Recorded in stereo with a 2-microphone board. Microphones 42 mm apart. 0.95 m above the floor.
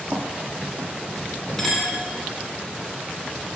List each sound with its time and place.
0.1 s footsteps: 70° right (ahead or behind), 2.5 m; by 2.3 s centre (ahead or behind), 2 m
1.6 s a clink: 10° left (ahead or behind), 1.9 m